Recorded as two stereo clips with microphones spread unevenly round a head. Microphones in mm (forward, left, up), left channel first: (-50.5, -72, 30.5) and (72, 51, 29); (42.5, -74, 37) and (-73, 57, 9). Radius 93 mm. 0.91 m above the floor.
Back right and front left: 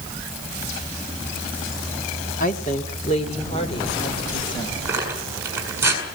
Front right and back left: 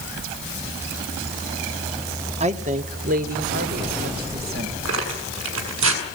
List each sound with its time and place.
2.4 s a woman speaking: straight behind, 1.7 m; by 4.8 s 160° left, 4 m
4.8 s tearing paper: 120° left, 6 m